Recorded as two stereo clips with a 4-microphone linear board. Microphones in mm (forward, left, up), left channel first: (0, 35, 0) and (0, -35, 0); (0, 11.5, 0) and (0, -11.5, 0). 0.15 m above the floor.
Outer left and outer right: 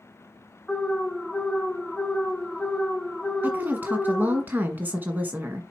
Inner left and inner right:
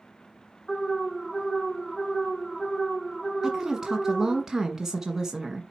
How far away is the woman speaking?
About 1.4 m.